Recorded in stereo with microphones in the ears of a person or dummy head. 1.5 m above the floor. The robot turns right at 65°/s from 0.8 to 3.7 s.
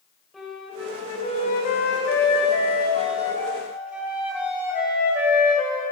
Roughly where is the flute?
Ahead.